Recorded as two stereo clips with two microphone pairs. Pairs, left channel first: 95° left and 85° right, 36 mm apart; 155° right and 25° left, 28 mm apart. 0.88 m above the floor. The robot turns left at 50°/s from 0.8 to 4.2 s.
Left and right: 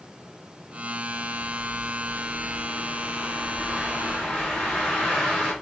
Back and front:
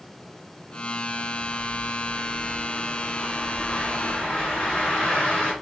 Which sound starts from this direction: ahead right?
A bird, at 1.1 s.